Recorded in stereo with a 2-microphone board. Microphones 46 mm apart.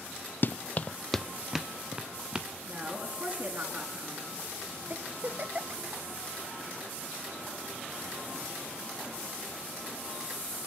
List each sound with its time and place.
0.4 s running footsteps: 50° left (ahead or behind), 0.7 m; by 2.5 s 20° right (ahead or behind), 2 m
2.7 s a woman speaking: 35° right (ahead or behind), 5 m
4.9 s a giggle: 45° right (ahead or behind), 1.0 m